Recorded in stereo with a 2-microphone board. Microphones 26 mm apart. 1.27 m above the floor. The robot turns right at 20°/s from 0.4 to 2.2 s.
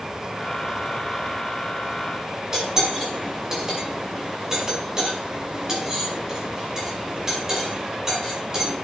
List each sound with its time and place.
2.5 s cutlery clinking: 15° right (ahead or behind), 5 m